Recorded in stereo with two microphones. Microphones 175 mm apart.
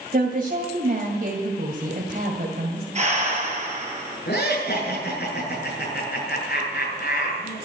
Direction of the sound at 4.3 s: 70° left (ahead or behind).